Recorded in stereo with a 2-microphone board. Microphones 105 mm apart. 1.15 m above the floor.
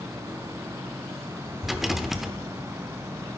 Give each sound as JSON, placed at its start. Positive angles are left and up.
{"t": 1.6, "sound": "a rattle", "side_deg": 0, "distance_m": 0.8}